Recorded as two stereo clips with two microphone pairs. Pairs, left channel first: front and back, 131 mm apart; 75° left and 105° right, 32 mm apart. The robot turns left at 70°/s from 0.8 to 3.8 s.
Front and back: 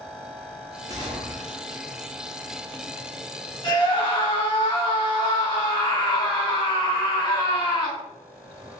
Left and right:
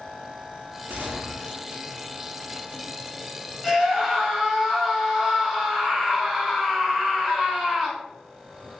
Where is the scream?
Straight ahead, 1.6 m; by 8.0 s 10° right, 1.6 m.